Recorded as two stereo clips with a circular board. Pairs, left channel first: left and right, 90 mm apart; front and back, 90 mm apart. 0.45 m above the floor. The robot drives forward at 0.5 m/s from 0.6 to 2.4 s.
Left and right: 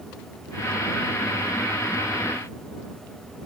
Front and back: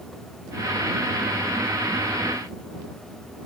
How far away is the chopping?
I don't hear chopping.